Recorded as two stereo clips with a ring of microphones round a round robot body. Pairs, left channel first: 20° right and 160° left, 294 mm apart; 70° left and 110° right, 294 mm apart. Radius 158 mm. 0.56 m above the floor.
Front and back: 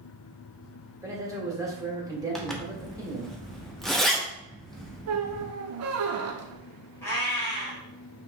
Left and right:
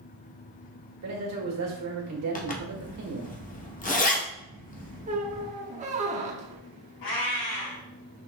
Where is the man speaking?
125° right, 1.6 m.